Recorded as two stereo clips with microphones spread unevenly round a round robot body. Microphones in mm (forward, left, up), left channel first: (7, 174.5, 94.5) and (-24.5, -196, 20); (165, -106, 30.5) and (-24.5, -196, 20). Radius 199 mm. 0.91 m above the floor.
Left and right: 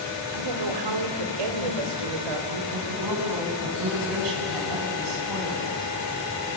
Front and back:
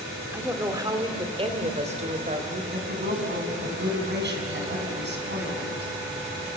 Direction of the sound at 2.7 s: 125° right.